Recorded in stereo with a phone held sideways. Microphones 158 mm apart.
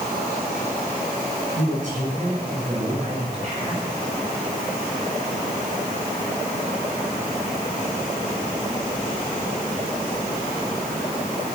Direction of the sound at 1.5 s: 55° right (ahead or behind).